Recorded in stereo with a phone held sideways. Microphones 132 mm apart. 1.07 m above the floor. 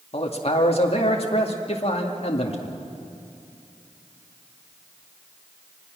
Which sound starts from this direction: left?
A man speaking, at 0.1 s.